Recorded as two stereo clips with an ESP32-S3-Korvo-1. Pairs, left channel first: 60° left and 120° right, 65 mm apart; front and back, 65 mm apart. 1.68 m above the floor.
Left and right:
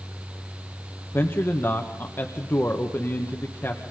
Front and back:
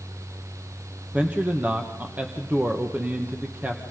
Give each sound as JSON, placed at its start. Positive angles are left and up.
{"t": 1.1, "sound": "a man speaking", "azimuth_deg": 115, "distance_m": 1.7}